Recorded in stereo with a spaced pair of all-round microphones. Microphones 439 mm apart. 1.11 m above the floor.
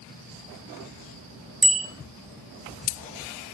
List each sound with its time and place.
1.6 s a bicycle bell: 55° right (ahead or behind), 2.5 m